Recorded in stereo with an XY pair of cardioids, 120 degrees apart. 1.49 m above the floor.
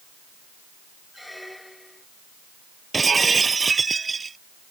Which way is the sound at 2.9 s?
25° right.